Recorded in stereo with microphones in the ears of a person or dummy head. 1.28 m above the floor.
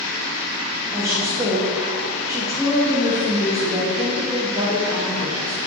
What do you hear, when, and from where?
0.9 s a woman speaking: 15° right (ahead or behind), 1.3 m